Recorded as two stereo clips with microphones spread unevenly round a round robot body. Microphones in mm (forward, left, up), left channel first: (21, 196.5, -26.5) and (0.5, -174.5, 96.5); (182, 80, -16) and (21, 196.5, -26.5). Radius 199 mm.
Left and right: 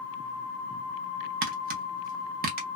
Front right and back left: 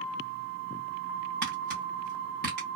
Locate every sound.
1.4 s tapping: 170° right, 0.5 m